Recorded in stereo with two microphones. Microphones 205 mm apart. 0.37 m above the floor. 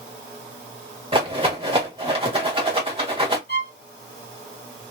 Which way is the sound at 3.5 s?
55° left (ahead or behind).